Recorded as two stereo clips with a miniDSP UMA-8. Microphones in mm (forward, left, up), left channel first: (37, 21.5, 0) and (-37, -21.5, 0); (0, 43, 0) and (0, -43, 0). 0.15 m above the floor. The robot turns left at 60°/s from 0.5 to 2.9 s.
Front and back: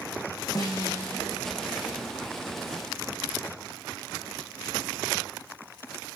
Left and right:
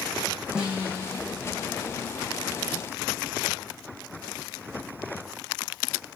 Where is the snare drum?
10° right, 3.5 m; by 1.2 s 50° right, 3.5 m.